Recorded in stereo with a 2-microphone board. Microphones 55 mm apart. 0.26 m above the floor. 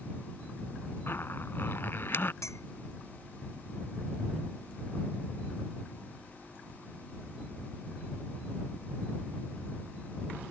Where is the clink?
65° left (ahead or behind).